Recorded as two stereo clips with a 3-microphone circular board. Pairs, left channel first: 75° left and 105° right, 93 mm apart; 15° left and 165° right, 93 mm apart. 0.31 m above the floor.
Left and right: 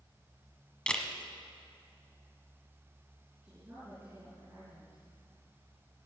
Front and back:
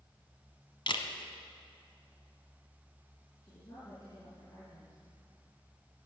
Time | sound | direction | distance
0.9 | a camera shutter | 5° right | 1.2 m
3.4 | a woman speaking | 35° right | 6 m